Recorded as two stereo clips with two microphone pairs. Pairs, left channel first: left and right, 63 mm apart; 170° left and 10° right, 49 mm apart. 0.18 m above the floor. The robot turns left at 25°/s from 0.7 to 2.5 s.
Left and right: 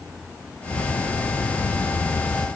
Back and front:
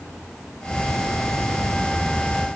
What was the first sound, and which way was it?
Only background noise.